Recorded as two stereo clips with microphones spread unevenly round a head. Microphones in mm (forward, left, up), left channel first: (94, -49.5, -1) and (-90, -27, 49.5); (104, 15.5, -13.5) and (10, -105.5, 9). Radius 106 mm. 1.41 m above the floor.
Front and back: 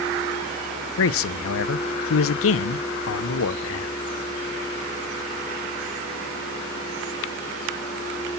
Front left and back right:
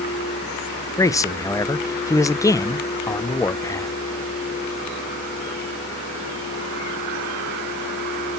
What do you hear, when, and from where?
1.0 s a man speaking: 20° right, 0.6 m